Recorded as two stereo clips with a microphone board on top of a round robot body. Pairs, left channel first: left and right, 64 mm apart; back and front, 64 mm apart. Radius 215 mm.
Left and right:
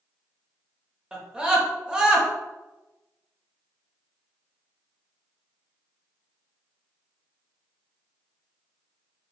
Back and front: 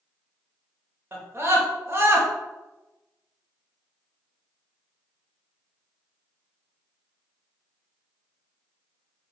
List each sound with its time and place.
1.1 s a scream: 20° right, 1.3 m